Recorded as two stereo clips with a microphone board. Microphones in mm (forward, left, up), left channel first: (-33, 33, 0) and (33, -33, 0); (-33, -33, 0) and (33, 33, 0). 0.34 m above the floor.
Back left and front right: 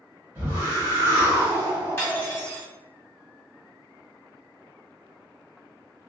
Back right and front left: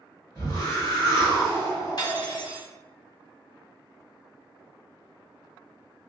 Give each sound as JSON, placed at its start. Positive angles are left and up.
{"t": 0.3, "sound": "a whoosh", "azimuth_deg": -100, "distance_m": 1.3}
{"t": 2.0, "sound": "cutlery clinking", "azimuth_deg": -165, "distance_m": 1.2}